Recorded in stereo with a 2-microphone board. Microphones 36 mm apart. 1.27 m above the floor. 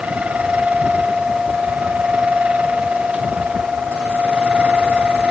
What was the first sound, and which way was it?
Only background noise.